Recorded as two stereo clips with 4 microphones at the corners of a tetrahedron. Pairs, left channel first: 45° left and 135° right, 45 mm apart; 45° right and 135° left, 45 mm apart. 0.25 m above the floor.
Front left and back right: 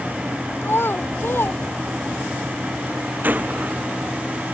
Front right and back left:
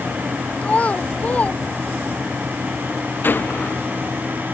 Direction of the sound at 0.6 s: 15° left.